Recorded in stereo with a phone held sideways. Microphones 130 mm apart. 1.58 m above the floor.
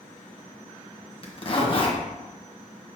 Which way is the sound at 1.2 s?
40° left (ahead or behind).